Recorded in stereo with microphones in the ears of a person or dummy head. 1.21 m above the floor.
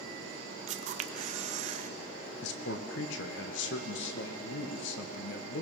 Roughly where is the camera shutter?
Right.